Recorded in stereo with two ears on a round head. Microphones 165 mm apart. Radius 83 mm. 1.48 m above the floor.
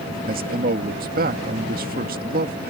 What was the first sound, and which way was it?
A man speaking, 50° right (ahead or behind).